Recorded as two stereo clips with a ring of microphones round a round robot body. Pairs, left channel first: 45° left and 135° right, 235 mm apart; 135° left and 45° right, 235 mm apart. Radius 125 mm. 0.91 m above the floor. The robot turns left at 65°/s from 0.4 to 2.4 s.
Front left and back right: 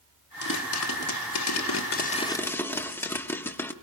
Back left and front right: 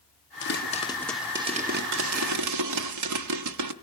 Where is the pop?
95° left, 1.1 m; by 3.7 s 35° right, 1.1 m.